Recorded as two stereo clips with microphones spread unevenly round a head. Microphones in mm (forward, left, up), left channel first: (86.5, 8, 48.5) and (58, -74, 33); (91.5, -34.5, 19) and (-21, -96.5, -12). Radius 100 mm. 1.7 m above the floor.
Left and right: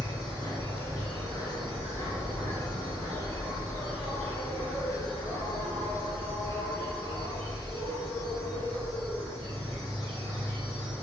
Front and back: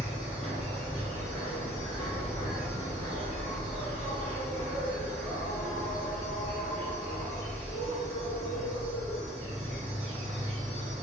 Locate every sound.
0.0 s an insect: 150° right, 1.9 m